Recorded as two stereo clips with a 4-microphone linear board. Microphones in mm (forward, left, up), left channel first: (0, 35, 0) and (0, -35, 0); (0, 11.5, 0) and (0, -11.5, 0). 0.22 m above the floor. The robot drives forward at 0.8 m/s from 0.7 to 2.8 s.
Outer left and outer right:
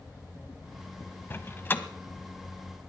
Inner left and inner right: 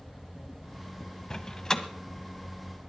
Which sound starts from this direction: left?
A door slam, at 1.3 s.